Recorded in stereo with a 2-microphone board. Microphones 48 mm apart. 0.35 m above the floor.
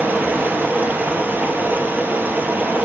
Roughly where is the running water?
Right.